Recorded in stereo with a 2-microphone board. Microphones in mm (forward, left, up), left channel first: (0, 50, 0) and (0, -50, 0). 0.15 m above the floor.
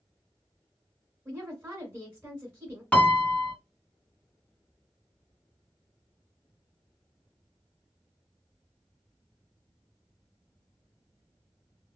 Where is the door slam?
No door slam in this recording.